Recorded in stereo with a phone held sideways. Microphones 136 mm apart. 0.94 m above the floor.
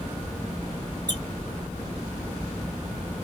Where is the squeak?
30° right (ahead or behind), 0.9 m.